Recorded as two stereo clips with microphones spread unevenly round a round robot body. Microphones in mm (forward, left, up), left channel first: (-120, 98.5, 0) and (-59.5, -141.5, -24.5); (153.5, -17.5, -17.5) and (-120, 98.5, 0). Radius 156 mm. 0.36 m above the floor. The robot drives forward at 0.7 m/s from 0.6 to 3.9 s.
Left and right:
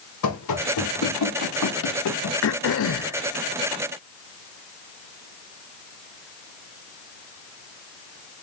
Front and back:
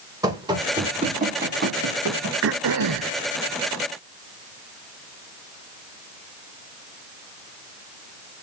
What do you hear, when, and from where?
0.2 s running footsteps: 80° left, 4 m; by 2.3 s 120° left, 3 m
2.4 s throat clearing: 115° left, 0.8 m; by 3.2 s 140° left, 1.1 m